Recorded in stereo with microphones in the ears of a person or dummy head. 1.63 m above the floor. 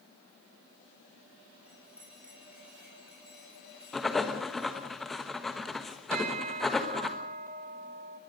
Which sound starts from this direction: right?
A bell, at 6.1 s.